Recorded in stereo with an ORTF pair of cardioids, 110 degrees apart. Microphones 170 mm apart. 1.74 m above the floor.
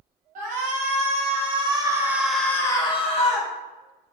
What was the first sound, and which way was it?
A shout, 50° right.